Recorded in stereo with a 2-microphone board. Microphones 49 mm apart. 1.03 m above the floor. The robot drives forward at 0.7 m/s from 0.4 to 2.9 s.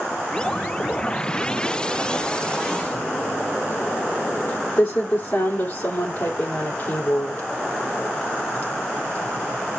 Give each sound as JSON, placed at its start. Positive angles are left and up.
{"t": 2.9, "sound": "typing on a keyboard", "side_deg": 50, "distance_m": 2.5}